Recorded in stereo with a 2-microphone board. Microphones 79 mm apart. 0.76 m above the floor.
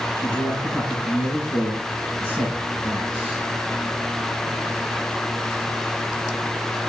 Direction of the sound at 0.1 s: 15° left (ahead or behind).